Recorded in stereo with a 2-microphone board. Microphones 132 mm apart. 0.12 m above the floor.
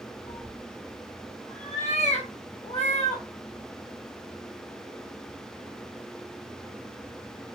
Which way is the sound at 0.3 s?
60° left (ahead or behind).